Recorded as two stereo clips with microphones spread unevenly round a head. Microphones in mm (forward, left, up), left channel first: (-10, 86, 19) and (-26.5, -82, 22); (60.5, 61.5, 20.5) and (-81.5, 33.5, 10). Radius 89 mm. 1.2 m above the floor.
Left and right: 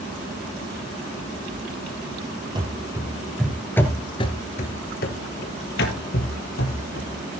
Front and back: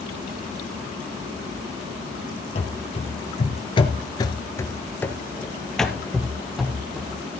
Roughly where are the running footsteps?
Ahead right.